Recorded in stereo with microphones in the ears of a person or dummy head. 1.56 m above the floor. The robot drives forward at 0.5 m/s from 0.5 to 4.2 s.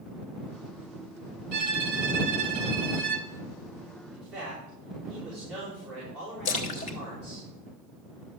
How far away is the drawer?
No drawer in this recording.